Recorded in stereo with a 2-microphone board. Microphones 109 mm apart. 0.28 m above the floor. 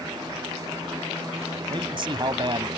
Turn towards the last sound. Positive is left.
turn(degrees=-50)  # may be behind; listen again after turning